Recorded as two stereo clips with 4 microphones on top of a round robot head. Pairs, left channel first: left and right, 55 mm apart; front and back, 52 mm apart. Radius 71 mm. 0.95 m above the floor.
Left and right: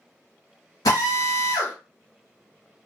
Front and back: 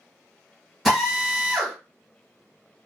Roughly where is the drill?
Left.